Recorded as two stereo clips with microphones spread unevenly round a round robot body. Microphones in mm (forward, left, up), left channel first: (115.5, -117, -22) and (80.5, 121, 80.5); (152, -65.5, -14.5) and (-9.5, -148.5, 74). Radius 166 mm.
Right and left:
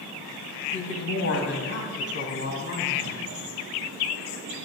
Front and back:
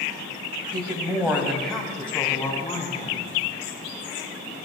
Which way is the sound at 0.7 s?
75° right.